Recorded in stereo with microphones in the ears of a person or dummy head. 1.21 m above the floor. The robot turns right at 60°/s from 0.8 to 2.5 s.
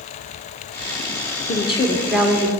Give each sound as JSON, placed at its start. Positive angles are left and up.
{"t": 1.5, "sound": "a woman speaking", "azimuth_deg": 145, "distance_m": 0.9}